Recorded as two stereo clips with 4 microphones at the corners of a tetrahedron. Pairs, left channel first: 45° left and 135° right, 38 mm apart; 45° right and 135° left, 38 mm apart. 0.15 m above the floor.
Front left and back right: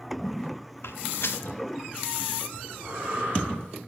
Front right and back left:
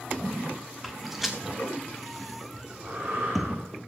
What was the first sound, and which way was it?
Footsteps, 50° left.